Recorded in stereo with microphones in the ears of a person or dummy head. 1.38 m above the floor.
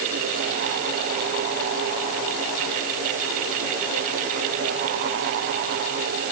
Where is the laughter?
I don't hear laughter.